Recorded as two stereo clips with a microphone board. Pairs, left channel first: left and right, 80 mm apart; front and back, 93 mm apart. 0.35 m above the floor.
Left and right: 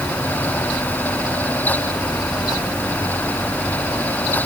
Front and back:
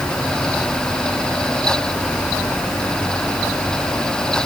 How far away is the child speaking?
No child speaking in this recording.